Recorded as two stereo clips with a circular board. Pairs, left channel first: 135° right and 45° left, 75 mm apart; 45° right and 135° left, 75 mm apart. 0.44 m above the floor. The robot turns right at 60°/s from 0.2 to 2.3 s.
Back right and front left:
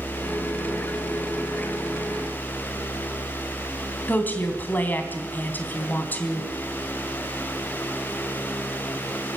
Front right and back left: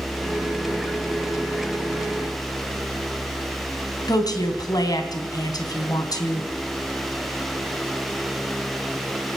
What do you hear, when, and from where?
4.1 s a woman speaking: 70° right, 3.5 m